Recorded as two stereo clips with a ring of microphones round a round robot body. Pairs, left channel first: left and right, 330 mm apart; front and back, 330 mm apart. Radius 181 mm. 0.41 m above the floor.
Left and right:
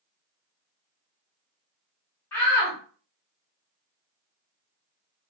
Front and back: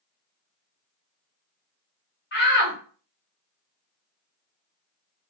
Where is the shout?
10° left, 1.3 m.